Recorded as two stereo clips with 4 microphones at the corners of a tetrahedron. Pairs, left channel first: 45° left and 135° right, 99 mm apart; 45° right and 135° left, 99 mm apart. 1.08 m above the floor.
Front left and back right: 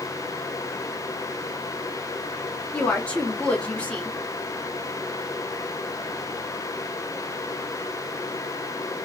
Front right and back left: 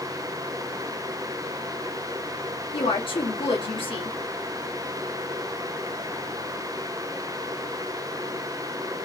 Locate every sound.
2.7 s a woman speaking: 30° right, 1.3 m